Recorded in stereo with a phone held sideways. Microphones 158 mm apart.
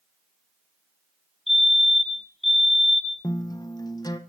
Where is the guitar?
25° left (ahead or behind), 0.9 m.